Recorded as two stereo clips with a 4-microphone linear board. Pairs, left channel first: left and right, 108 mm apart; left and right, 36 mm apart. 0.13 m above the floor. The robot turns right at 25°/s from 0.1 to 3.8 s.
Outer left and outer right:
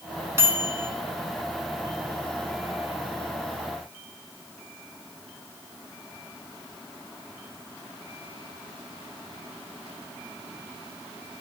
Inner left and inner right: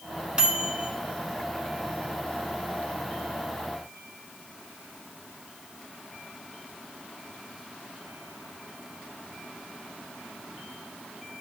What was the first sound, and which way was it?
A microwave, 25° right (ahead or behind).